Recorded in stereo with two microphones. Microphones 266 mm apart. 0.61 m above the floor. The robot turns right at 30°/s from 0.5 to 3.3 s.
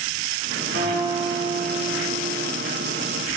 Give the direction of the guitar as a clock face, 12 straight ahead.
4 o'clock.